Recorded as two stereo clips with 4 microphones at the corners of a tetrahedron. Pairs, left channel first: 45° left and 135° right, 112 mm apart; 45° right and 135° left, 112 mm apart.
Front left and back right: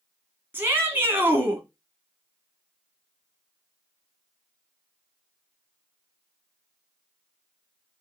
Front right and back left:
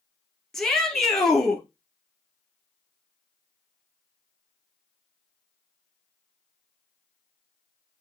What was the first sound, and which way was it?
A shout, 120° right.